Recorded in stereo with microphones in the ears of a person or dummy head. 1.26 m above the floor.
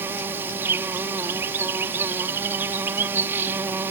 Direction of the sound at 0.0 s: 10° right (ahead or behind).